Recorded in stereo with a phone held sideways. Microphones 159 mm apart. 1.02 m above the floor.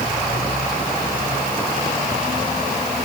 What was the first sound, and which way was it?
Only background noise.